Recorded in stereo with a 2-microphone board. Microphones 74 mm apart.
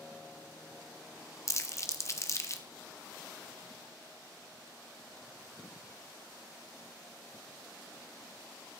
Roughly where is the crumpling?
Left.